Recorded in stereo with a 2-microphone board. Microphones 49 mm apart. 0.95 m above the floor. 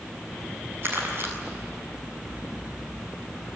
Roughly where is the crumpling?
Right.